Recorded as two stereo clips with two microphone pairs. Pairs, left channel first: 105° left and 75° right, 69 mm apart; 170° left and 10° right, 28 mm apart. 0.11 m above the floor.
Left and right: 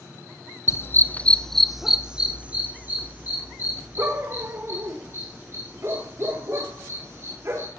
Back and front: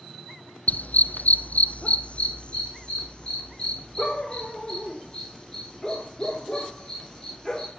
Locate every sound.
0.7 s a dog barking: 150° left, 1.1 m; by 7.7 s 120° right, 7 m